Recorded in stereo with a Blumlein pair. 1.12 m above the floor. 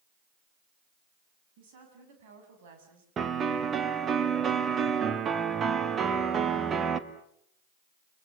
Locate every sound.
1.6 s a woman speaking: 50° right, 7.5 m; by 3.1 s 55° right, 6 m
3.2 s a piano: 20° right, 1.4 m